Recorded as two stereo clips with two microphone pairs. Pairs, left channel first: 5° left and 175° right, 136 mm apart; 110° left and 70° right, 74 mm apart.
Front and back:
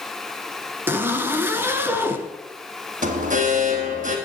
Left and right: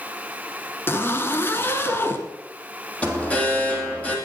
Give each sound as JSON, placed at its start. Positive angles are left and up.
{"t": 0.9, "sound": "a zipper", "azimuth_deg": 125, "distance_m": 1.6}
{"t": 3.0, "sound": "an alarm", "azimuth_deg": 180, "distance_m": 3.0}